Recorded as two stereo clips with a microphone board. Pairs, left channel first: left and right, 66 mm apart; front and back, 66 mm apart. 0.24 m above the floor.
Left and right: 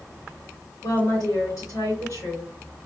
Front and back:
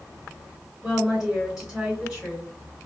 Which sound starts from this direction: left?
A woman speaking, at 0.8 s.